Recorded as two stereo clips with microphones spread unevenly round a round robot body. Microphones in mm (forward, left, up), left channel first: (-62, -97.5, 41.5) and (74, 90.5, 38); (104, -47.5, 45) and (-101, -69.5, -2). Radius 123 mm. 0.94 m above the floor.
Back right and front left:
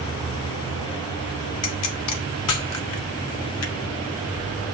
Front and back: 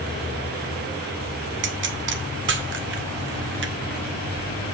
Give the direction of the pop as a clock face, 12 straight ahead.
5 o'clock.